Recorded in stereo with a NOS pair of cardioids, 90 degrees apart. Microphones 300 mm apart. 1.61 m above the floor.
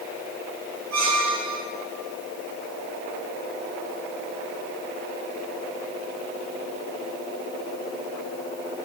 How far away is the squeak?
About 6.5 m.